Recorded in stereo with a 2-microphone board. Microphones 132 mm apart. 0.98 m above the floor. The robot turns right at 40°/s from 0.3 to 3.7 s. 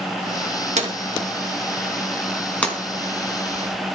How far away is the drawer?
About 3.5 m.